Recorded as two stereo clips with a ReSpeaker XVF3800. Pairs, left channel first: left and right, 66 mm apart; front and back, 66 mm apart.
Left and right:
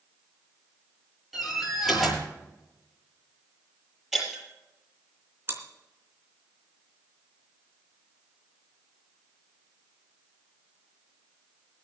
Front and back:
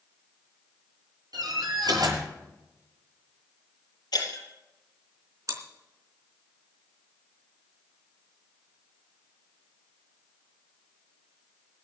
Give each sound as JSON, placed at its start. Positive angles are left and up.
{"t": 1.3, "sound": "a door slam", "azimuth_deg": 180, "distance_m": 7.5}
{"t": 4.1, "sound": "breaking glass", "azimuth_deg": -5, "distance_m": 6.0}
{"t": 5.5, "sound": "chewing", "azimuth_deg": -145, "distance_m": 3.5}